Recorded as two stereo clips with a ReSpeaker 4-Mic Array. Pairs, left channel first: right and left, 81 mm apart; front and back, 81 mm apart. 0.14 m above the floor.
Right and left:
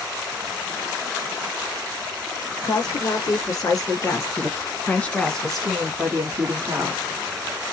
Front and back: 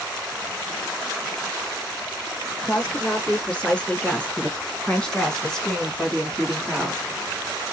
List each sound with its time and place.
2.6 s a woman speaking: 75° right, 1.9 m; by 7.0 s 90° left, 1.3 m